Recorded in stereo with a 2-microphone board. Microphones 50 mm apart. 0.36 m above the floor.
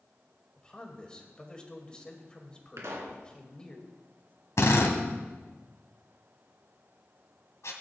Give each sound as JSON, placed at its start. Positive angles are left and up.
{"t": 0.6, "sound": "a man speaking", "side_deg": 20, "distance_m": 2.0}
{"t": 2.8, "sound": "a pop", "side_deg": -70, "distance_m": 2.5}
{"t": 4.6, "sound": "a drill", "side_deg": 70, "distance_m": 1.8}